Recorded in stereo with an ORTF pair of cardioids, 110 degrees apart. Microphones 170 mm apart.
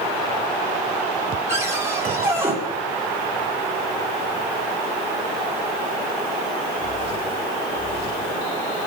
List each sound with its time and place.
1.5 s a cupboard door: 15° right, 7.5 m